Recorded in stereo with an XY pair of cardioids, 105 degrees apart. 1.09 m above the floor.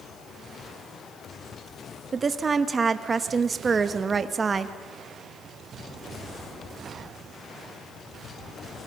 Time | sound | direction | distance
2.1 | a woman speaking | 35° right | 1.2 m